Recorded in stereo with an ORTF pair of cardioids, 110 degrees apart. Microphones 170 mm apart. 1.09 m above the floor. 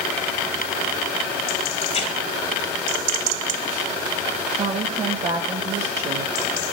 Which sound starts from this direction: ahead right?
A woman speaking, at 4.5 s.